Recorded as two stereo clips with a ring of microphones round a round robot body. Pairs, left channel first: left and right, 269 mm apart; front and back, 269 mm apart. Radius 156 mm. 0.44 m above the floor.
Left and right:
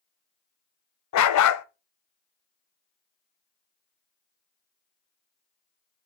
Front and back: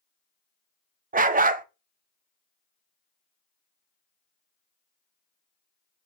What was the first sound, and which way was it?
A dog barking, 120° left.